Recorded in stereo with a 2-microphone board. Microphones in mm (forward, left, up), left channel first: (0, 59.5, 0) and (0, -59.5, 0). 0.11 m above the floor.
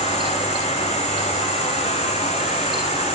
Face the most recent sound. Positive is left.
turn(degrees=70)  # may be behind; listen again after turning